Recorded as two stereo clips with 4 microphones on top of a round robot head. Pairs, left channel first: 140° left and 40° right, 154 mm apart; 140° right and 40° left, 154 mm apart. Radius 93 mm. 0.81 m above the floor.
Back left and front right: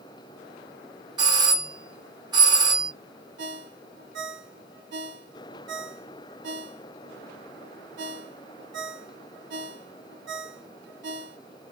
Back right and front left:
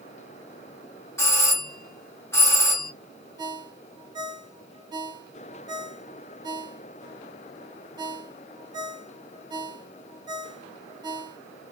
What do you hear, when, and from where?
1.2 s a doorbell: 80° right, 1.4 m
3.4 s a ringtone: 30° right, 0.6 m